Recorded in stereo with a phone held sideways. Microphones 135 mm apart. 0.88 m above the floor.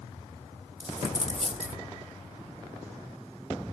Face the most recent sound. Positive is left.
turn(degrees=-60)  # may be behind; listen again after turning